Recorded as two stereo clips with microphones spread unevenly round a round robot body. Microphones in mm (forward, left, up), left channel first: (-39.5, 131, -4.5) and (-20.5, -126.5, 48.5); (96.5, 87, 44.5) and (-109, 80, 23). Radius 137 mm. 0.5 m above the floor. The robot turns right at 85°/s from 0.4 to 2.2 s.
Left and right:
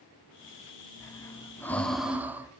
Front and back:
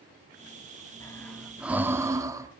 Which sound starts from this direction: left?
Breathing, at 1.0 s.